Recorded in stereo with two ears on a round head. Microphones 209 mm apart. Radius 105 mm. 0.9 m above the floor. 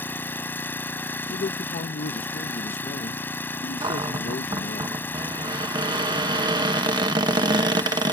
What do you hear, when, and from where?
0.0 s an engine running: 10° left (ahead or behind)
1.3 s a man speaking: 35° left (ahead or behind)
3.8 s a cupboard door: 20° right (ahead or behind)